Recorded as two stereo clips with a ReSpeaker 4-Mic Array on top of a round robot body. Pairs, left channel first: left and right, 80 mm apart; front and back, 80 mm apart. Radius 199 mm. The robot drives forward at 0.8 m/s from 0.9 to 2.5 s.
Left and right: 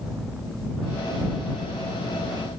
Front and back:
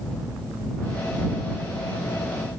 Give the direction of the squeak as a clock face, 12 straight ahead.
No squeak in this recording.